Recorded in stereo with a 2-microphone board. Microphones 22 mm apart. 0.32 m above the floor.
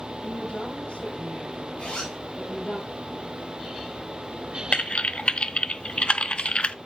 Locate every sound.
0.2 s a woman speaking: 75° left (ahead or behind), 8 m; by 2.8 s 65° left (ahead or behind), 7 m
1.8 s a zipper: 75° left (ahead or behind), 5 m
4.7 s typing on a keyboard: 50° left (ahead or behind), 0.6 m